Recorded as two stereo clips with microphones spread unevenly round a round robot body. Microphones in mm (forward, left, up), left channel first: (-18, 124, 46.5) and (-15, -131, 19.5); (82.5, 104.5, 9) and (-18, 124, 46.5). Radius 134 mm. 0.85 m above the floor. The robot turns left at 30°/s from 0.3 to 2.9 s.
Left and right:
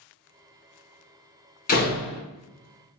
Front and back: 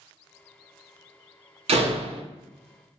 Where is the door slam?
150° left, 0.6 m; by 2.2 s 130° left, 0.6 m.